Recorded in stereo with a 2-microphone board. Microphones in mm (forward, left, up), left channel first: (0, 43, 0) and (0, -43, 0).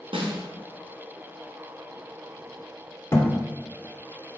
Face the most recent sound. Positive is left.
turn(degrees=30)  # may be behind; listen again after turning